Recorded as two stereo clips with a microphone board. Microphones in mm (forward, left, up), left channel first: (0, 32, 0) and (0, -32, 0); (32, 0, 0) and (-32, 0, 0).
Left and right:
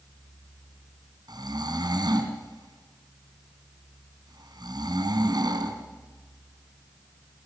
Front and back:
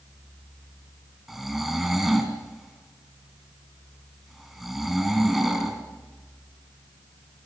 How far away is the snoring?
About 3 m.